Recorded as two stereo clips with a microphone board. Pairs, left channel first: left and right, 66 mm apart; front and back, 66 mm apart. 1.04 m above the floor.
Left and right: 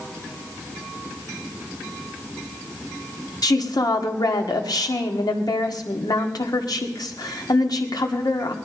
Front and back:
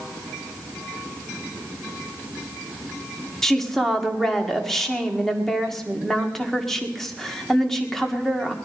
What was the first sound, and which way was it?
A woman speaking, 85° left.